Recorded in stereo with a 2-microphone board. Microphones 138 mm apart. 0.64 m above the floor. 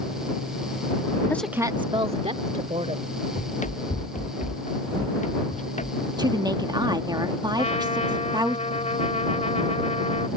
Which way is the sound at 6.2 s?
30° right (ahead or behind).